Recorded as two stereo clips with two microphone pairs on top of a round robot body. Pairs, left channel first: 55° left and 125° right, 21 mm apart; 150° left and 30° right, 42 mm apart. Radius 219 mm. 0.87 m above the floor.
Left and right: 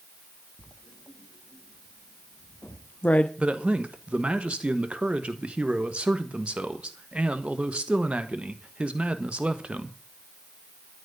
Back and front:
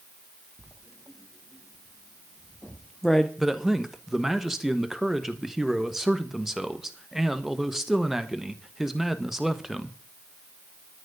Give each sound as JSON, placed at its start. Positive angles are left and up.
{"t": 0.6, "sound": "writing", "azimuth_deg": 60, "distance_m": 0.7}
{"t": 3.4, "sound": "a man speaking", "azimuth_deg": -115, "distance_m": 1.5}